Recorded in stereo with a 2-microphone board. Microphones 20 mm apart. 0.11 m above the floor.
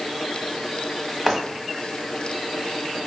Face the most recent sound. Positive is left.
turn(degrees=-5)  # may be behind; listen again after turning